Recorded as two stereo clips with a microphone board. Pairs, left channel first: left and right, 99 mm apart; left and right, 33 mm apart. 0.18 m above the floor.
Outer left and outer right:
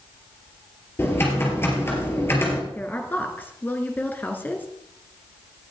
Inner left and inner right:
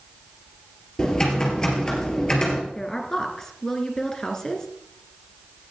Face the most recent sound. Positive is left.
turn(degrees=20)  # may be behind; listen again after turning